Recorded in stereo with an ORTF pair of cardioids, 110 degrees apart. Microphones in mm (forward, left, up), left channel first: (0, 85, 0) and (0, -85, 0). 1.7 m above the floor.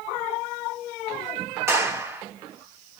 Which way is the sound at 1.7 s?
15° right.